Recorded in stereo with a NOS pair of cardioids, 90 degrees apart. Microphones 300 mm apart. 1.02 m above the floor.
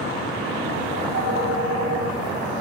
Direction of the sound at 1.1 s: 55° right.